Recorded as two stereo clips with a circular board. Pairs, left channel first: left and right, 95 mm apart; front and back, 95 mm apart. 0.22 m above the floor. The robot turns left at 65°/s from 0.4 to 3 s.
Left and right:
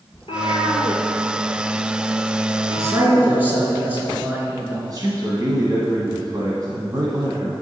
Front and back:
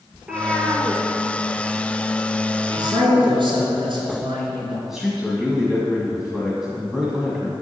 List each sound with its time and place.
0.1 s a cat meowing: 95° left, 1.8 m; by 3.4 s 70° right, 1.8 m
2.8 s a man speaking: 145° right, 3.5 m; by 4.8 s 160° right, 3.5 m
4.9 s a man speaking: 95° right, 1.5 m